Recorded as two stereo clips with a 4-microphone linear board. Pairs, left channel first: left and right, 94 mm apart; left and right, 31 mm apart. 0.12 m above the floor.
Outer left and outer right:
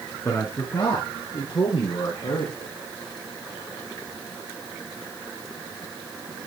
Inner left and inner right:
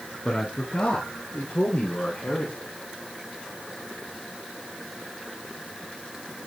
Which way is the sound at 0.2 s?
25° left (ahead or behind).